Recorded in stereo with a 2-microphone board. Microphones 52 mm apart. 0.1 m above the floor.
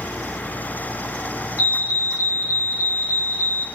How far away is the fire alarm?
About 4 m.